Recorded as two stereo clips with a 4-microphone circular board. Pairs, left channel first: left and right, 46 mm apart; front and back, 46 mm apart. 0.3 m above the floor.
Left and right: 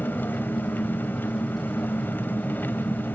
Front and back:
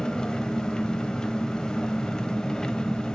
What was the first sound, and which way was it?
An engine running, 70° left.